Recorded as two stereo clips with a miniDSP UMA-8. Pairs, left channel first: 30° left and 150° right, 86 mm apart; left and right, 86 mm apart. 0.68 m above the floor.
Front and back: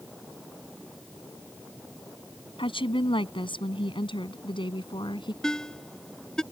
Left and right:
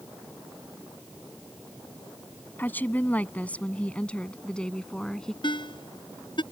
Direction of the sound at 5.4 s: 115° left.